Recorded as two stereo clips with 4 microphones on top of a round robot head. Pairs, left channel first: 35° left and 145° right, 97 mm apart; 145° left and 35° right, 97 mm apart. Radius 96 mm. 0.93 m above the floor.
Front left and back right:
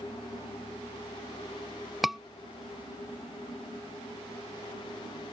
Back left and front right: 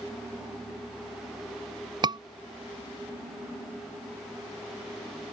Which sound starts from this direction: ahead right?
A scream, at 2.0 s.